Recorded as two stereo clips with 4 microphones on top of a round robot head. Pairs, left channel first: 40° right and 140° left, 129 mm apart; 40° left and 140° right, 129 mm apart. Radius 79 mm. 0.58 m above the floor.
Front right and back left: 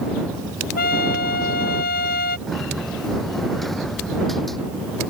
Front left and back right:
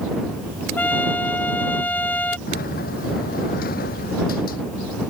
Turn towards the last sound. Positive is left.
turn(degrees=50)